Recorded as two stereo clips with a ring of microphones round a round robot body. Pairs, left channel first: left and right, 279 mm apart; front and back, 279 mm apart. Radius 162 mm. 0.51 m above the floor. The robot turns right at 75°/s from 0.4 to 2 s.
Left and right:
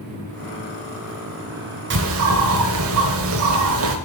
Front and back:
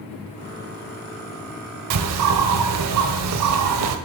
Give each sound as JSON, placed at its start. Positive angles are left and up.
{"t": 1.9, "sound": "a bird", "azimuth_deg": -145, "distance_m": 0.7}